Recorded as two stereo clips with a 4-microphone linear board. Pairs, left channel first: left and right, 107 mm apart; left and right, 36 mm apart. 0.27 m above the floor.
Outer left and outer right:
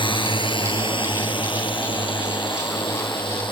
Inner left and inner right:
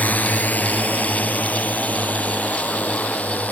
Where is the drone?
50° left (ahead or behind).